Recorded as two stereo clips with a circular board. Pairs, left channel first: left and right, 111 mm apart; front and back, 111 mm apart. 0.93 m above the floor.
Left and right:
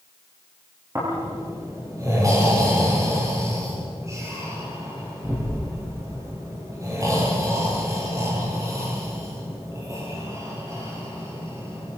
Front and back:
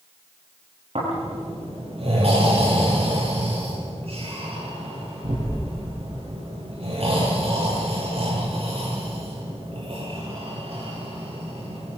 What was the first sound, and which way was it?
Snoring, 150° right.